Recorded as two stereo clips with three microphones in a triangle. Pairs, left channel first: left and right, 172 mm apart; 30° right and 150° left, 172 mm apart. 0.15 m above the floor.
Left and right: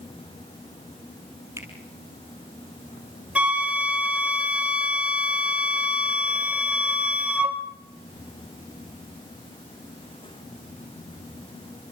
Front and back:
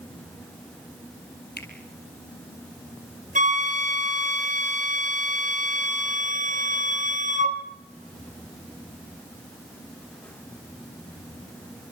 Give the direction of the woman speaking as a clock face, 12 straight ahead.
I don't hear a woman speaking.